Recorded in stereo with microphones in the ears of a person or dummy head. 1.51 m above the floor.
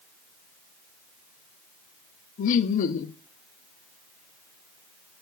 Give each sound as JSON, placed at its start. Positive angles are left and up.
{"t": 2.4, "sound": "laughter", "side_deg": 50, "distance_m": 0.7}